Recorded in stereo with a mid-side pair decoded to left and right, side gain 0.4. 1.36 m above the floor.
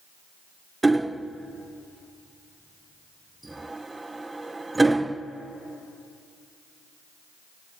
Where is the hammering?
20° right, 0.6 m.